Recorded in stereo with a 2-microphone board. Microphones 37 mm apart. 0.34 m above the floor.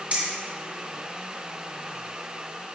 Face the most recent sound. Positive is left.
turn(degrees=-40)  # may be behind; listen again after turning